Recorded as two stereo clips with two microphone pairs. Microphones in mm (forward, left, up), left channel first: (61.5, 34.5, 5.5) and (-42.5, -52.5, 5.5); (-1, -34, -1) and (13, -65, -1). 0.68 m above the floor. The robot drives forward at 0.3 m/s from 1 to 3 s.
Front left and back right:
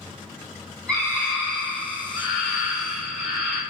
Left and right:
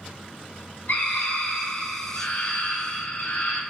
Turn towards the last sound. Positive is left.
turn(degrees=135)